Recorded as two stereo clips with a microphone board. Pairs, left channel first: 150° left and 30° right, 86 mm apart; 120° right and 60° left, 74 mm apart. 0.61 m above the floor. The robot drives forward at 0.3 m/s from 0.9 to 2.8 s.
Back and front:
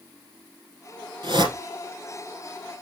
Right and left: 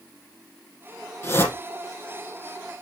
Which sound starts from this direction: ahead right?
A whoosh, at 1.2 s.